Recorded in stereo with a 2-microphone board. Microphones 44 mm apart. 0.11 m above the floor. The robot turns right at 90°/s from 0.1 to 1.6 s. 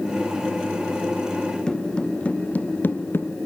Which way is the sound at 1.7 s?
15° left (ahead or behind).